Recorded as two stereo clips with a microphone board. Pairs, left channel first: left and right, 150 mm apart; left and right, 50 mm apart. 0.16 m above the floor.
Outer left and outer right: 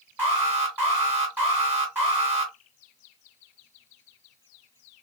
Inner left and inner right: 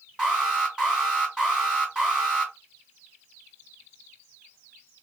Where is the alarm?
15° right (ahead or behind), 2.5 m.